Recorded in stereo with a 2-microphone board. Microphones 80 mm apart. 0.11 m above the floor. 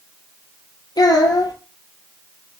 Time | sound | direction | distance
1.0 | a child speaking | 60° left (ahead or behind) | 1.8 m